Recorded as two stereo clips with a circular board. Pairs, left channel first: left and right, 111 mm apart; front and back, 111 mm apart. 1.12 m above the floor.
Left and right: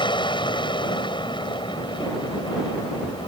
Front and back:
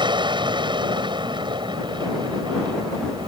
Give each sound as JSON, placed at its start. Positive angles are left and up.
{"t": 0.0, "sound": "an aircraft", "azimuth_deg": 135}